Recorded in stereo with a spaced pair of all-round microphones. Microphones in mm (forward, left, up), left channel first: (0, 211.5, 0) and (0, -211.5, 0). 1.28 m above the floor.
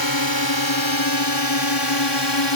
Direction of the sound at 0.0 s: 55° left (ahead or behind).